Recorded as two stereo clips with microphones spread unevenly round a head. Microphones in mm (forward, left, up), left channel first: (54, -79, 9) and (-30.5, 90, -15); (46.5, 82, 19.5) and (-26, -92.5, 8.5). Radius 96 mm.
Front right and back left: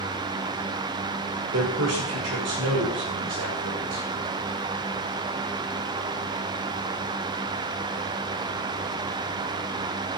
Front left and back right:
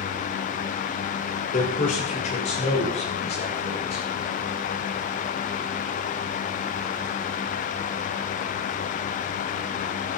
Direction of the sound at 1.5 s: 115° left.